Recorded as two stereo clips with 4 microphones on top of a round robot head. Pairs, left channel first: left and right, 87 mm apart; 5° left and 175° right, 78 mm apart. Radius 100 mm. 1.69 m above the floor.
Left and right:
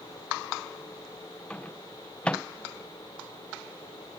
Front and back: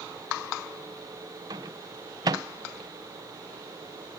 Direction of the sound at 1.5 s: 170° left.